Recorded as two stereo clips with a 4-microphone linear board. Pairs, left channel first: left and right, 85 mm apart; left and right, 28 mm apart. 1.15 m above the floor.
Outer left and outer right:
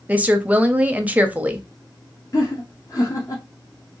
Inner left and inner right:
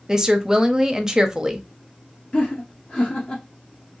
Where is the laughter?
40° left (ahead or behind), 0.6 m.